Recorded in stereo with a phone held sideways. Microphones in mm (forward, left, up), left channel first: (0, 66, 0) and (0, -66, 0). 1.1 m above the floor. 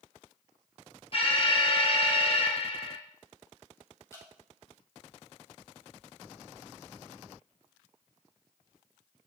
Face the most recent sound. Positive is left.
turn(degrees=20)  # may be behind; listen again after turning